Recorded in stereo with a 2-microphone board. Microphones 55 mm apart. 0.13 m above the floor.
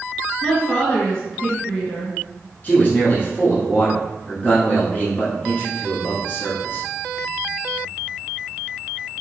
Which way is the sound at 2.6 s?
35° left (ahead or behind).